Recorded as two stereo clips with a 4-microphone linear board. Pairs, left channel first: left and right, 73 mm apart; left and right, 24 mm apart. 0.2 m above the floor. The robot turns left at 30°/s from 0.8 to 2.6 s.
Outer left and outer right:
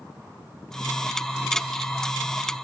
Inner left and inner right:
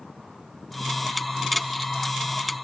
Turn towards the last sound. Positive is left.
No sound to turn to.